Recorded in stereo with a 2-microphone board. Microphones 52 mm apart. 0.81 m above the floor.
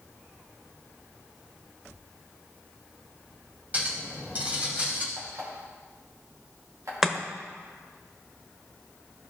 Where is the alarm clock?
80° right, 3.5 m.